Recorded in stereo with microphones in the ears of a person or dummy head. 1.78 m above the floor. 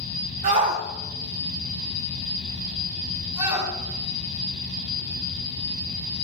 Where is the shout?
40° right (ahead or behind), 1.1 m; by 6.2 s 20° right (ahead or behind), 7 m.